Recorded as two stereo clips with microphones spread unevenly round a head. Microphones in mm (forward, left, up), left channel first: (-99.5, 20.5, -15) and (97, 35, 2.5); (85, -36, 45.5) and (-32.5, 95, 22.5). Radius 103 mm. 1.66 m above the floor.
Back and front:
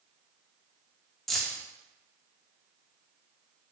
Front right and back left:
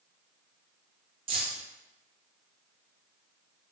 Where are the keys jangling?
85° left, 0.5 m.